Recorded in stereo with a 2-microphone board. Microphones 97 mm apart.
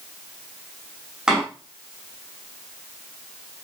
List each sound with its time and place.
1.3 s a door slam: 5° right (ahead or behind), 6 m